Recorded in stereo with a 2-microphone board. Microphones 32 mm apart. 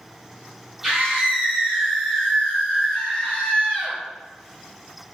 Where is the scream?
20° right (ahead or behind), 1.5 m; by 4.0 s 30° left (ahead or behind), 1.9 m.